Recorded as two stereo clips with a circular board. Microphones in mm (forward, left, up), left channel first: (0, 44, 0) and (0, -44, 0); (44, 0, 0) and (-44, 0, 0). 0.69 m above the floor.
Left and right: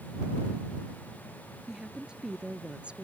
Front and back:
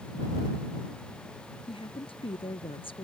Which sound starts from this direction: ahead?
A woman speaking, at 1.7 s.